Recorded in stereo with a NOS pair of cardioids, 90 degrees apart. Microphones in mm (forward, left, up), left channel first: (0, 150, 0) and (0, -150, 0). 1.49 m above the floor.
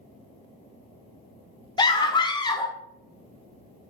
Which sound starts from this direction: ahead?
A scream, at 1.8 s.